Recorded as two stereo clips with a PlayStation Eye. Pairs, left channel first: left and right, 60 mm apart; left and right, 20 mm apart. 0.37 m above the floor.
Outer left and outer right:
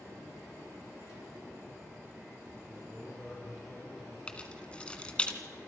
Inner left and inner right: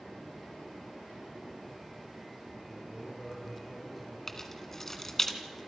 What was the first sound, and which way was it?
A man speaking, 5° right (ahead or behind).